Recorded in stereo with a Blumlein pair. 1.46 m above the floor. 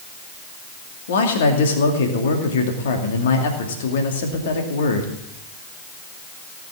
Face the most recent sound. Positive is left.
turn(degrees=60)